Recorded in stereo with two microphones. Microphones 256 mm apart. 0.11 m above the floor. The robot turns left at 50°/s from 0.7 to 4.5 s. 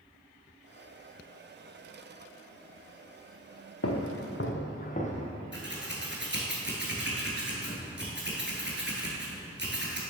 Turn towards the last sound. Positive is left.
turn(degrees=-45)  # may be behind; listen again after turning